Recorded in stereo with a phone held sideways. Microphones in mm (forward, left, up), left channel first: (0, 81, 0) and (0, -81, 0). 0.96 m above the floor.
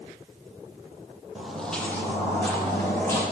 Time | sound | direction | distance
1.4 | footsteps | 5° right (ahead or behind) | 1.1 m